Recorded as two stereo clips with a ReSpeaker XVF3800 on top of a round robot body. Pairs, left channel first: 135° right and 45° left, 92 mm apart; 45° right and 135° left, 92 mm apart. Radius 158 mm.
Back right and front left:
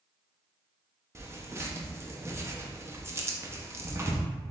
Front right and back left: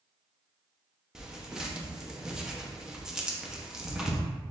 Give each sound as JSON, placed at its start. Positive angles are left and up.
{"t": 1.1, "sound": "tearing paper", "azimuth_deg": 60, "distance_m": 1.1}